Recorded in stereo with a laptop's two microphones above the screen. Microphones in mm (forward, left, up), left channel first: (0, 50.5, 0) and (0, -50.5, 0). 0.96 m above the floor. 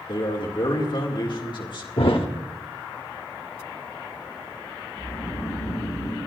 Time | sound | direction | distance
0.1 | a man speaking | 55° left (ahead or behind) | 2 m
2.0 | a thud | 65° left (ahead or behind) | 1.0 m
4.9 | snoring | 30° left (ahead or behind) | 5 m